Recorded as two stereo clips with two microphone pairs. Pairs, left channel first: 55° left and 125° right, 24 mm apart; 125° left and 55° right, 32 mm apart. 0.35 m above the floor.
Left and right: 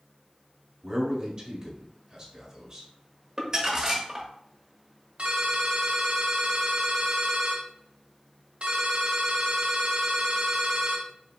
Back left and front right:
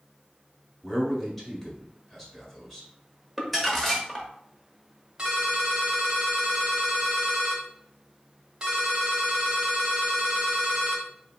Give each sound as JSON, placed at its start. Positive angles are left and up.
{"t": 0.8, "sound": "a man speaking", "azimuth_deg": -160, "distance_m": 1.5}
{"t": 3.4, "sound": "crumpling", "azimuth_deg": -160, "distance_m": 1.1}
{"t": 5.2, "sound": "a ringtone", "azimuth_deg": -115, "distance_m": 1.6}